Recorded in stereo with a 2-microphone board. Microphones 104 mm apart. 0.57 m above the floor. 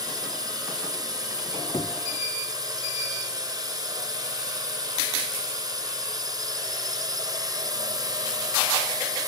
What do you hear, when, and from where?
0.0 s a drone: 35° right (ahead or behind)
1.4 s a squeak: 40° left (ahead or behind)